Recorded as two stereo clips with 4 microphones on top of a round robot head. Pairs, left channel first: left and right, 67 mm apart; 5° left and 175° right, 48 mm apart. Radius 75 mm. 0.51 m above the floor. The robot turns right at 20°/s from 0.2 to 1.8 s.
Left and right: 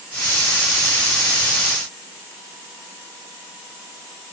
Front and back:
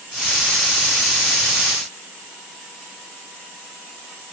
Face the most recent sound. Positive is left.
No sound to turn to.